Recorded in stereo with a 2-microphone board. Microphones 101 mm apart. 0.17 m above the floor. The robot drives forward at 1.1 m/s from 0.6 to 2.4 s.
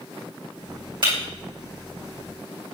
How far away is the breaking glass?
About 5 m.